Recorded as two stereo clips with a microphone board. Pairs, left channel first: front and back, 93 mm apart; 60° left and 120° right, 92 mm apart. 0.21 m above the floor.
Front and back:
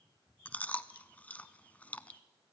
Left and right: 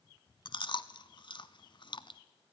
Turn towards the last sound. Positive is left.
turn(degrees=70)